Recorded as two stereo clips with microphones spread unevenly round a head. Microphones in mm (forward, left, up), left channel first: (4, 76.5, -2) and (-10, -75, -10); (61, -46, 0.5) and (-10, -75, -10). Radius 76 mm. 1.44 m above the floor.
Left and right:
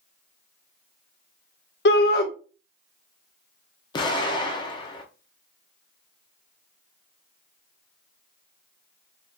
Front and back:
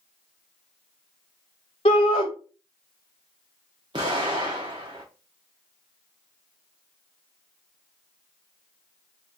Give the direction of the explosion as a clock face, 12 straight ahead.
7 o'clock.